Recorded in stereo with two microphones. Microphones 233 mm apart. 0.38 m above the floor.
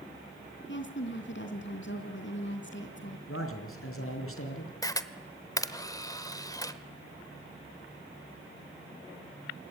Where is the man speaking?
65° left (ahead or behind), 4.5 m.